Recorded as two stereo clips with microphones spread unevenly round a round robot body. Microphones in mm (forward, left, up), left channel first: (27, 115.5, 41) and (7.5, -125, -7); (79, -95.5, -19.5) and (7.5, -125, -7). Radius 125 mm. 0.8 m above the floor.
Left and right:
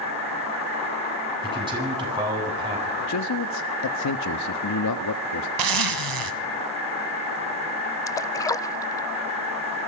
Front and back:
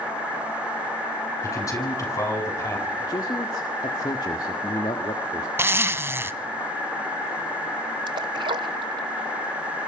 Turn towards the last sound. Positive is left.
turn(degrees=160)